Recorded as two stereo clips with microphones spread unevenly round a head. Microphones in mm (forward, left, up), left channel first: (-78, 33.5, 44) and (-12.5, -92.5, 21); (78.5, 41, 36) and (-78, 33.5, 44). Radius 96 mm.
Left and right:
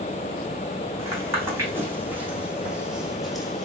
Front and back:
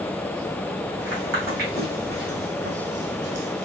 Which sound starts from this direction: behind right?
Footsteps, at 1.0 s.